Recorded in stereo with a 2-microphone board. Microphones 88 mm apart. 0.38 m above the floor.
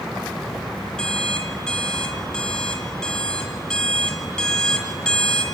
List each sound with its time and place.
1.0 s an alarm clock: 10° left (ahead or behind), 2 m